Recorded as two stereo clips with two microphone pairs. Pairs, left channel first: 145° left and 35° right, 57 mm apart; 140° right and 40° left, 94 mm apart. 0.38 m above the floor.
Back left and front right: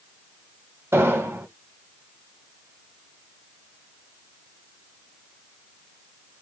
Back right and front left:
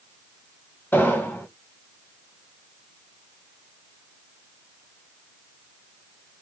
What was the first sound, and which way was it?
An explosion, 75° right.